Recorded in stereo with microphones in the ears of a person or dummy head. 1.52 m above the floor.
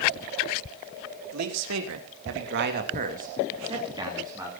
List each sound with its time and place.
1.3 s a man speaking: 85° right, 4 m; by 4.5 s 10° right (ahead or behind), 4.5 m